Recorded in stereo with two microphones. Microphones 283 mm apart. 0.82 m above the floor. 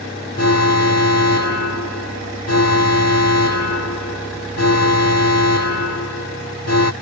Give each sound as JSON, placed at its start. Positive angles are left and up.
{"t": 0.4, "sound": "an alarm", "side_deg": 65}